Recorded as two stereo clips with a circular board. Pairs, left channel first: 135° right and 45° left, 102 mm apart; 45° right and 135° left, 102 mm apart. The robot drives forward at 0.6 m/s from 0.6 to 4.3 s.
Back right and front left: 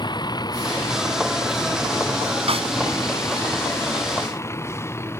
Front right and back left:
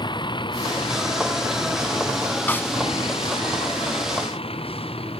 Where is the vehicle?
90° right; by 5.2 s 70° right.